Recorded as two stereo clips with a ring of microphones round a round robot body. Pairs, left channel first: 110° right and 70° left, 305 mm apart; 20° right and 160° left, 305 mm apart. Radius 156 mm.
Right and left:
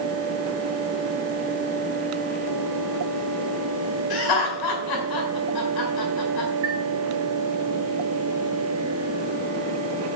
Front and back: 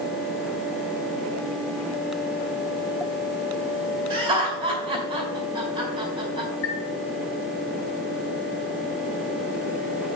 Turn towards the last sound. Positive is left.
turn(degrees=25)